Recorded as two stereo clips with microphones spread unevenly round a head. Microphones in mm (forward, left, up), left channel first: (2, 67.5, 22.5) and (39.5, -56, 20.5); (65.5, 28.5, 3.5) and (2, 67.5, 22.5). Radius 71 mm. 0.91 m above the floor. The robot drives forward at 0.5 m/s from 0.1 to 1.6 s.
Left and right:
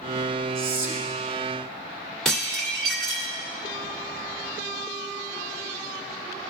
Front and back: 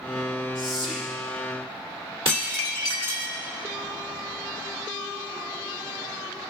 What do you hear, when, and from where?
0.6 s whispering: 85° right, 2 m; by 1.1 s 95° right, 2 m
2.2 s dishes clattering: 165° right, 1.3 m